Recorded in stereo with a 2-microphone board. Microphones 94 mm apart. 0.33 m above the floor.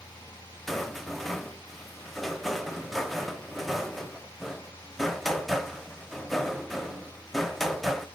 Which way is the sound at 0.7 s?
Centre (ahead or behind).